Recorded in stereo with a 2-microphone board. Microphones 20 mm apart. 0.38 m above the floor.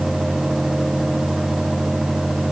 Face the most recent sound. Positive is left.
No sound to turn to.